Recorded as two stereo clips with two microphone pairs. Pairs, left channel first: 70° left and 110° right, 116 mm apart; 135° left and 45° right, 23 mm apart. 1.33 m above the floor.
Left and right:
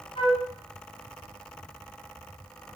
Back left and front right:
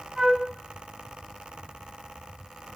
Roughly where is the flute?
Ahead left.